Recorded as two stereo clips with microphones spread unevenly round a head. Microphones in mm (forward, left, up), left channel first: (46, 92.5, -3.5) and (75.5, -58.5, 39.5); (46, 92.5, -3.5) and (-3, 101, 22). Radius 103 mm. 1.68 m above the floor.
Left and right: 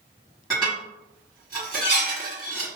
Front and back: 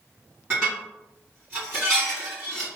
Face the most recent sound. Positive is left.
turn(degrees=-140)